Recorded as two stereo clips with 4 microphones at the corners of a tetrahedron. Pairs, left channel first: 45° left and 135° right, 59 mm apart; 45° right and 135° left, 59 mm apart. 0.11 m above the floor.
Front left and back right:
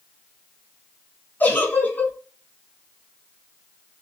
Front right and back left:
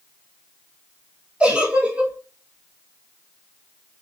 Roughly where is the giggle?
Left.